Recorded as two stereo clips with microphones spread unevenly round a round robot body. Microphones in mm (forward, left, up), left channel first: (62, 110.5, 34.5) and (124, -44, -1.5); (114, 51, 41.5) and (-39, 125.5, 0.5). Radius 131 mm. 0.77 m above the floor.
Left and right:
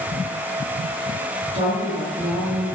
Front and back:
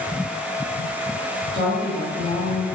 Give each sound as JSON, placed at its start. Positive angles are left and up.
{"t": 1.5, "sound": "a woman speaking", "azimuth_deg": 175, "distance_m": 1.0}